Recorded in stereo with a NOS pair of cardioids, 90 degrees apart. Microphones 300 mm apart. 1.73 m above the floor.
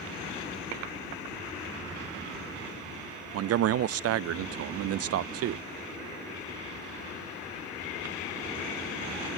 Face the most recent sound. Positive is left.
turn(degrees=-55)